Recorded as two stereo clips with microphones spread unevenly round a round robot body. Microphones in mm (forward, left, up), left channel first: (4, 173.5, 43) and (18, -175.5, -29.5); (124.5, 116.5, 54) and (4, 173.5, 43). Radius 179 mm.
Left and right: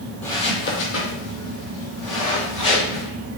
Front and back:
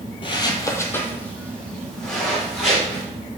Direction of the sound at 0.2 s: 15° left.